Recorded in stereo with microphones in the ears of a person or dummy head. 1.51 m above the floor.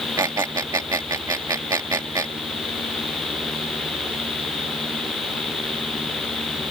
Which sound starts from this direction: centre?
A squeak, at 0.2 s.